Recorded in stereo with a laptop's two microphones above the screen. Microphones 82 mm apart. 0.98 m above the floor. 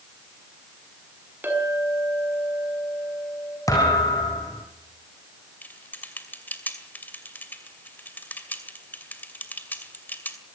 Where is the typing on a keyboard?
20° left (ahead or behind), 2 m.